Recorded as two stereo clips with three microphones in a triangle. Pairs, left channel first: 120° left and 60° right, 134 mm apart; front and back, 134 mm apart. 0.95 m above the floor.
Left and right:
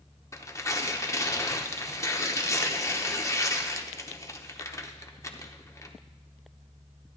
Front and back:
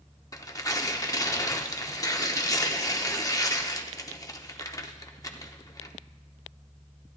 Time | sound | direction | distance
0.3 | tearing paper | 60° left | 0.7 m